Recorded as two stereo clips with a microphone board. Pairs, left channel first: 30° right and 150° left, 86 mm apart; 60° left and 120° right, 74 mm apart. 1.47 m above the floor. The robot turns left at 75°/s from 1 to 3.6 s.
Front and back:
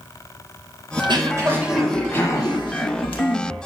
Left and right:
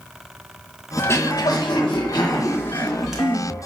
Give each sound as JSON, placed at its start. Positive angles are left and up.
{"t": 1.0, "sound": "throat clearing", "azimuth_deg": 125, "distance_m": 1.9}